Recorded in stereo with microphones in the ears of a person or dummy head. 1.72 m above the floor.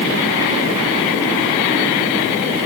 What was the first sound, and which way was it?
Only background noise.